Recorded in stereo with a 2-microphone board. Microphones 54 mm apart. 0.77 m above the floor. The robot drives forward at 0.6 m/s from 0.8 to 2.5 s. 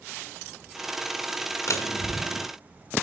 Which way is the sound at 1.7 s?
70° left (ahead or behind).